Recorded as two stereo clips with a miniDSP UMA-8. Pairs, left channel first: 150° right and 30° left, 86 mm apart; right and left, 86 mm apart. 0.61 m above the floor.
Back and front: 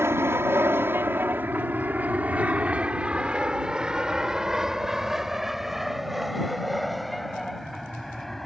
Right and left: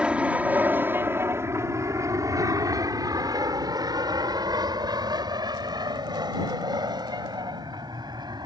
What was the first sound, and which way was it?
An aircraft, 25° left.